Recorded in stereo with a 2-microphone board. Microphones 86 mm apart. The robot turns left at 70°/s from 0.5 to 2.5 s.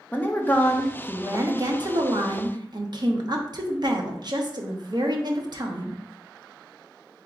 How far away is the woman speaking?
About 0.8 m.